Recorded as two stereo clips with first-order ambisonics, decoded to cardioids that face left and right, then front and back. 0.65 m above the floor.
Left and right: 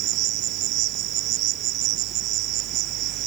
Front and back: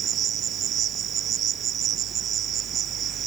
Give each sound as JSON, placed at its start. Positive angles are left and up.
{"t": 0.0, "sound": "an insect", "azimuth_deg": -125}